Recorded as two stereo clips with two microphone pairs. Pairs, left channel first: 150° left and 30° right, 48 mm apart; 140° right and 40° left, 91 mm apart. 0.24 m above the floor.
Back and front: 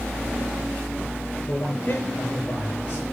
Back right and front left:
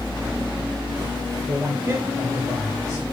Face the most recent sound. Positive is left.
turn(degrees=100)